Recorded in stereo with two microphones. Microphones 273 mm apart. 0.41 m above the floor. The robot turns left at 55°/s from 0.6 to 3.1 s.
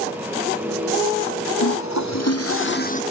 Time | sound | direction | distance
1.6 | a toilet flushing | 105° left | ?